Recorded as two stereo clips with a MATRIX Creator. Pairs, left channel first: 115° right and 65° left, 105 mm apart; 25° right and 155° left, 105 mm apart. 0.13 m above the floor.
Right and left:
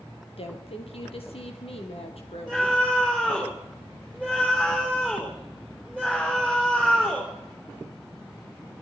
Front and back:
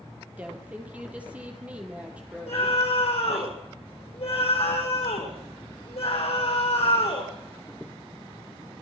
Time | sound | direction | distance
0.4 | a woman speaking | 125° right | 4 m
2.5 | a scream | 30° right | 5.5 m